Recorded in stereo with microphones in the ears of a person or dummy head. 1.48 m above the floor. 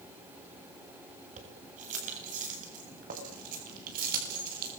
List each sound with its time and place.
1.4 s keys jangling: 45° right (ahead or behind), 7.5 m; by 4.7 s 55° right (ahead or behind), 8.5 m